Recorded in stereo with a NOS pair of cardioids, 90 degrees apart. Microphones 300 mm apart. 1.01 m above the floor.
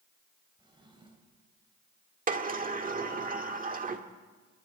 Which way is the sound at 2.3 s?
30° right.